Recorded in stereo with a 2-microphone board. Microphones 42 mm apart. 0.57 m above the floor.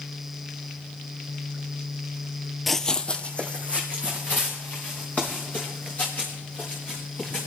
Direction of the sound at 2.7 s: Centre (ahead or behind).